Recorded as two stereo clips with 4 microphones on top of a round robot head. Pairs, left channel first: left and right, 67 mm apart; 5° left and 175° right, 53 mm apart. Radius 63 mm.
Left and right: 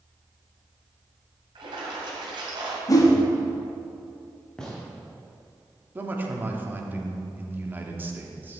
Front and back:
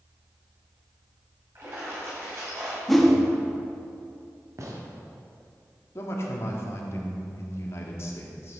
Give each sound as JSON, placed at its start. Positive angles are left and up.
{"t": 1.6, "sound": "a splash", "azimuth_deg": -115, "distance_m": 2.0}
{"t": 2.9, "sound": "a whoosh", "azimuth_deg": 95, "distance_m": 1.7}
{"t": 4.6, "sound": "a gunshot", "azimuth_deg": 170, "distance_m": 1.7}
{"t": 6.0, "sound": "a man speaking", "azimuth_deg": -30, "distance_m": 1.5}